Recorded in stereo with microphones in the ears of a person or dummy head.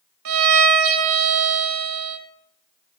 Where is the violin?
75° right (ahead or behind), 2 m.